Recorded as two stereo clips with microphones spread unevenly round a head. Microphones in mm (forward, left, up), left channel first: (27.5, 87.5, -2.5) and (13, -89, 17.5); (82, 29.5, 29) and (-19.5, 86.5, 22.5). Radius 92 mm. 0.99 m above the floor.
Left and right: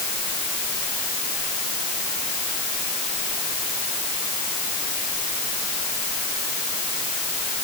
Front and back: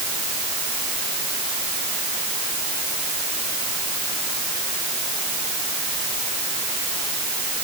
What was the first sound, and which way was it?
Only background noise.